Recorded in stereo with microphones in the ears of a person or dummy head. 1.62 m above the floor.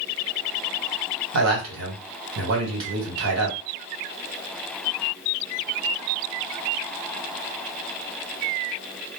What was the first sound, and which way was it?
A man speaking, 80° right.